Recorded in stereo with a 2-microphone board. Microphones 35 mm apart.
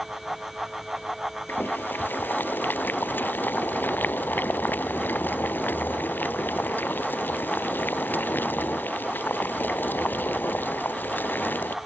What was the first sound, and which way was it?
Boiling, 65° left (ahead or behind).